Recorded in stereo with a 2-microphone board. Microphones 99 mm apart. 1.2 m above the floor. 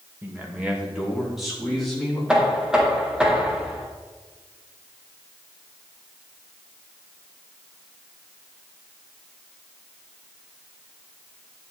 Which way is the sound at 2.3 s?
10° right (ahead or behind).